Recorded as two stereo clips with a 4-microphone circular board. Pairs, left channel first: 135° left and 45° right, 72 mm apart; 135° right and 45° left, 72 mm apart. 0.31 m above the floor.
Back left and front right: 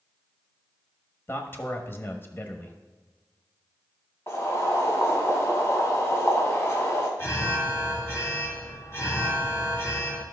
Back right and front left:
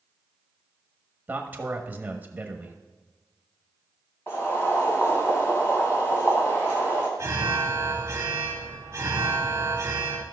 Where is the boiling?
Straight behind, 2.5 m.